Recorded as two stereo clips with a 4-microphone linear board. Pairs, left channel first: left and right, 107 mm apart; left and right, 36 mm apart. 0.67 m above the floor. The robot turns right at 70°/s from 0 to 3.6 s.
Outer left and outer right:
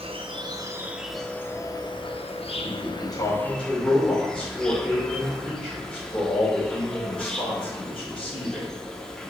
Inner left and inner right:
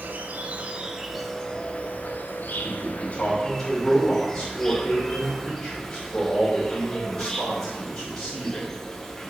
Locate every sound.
0.0 s an insect: 80° right, 0.7 m; by 9.3 s 175° left, 0.7 m
2.6 s a man speaking: 105° left, 3 m; by 8.7 s 170° left, 3 m